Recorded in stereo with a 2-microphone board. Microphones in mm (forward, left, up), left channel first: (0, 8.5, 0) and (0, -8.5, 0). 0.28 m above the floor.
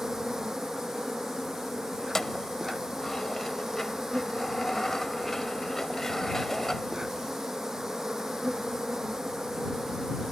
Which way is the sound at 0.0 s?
30° right (ahead or behind).